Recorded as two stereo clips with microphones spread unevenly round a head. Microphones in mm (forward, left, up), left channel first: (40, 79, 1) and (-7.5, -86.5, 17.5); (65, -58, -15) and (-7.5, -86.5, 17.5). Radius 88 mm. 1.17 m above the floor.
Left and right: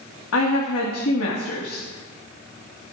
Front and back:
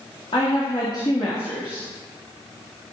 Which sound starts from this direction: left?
A woman speaking, at 0.3 s.